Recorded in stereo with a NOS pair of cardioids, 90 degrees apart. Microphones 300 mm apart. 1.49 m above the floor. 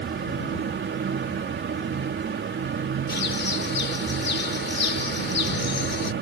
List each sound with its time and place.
0.0 s a fan: 40° right
3.1 s a bird: 40° left